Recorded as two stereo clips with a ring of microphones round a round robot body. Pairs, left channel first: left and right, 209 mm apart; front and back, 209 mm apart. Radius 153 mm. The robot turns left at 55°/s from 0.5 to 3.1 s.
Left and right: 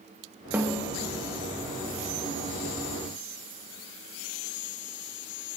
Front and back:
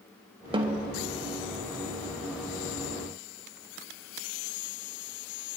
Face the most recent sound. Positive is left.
turn(degrees=60)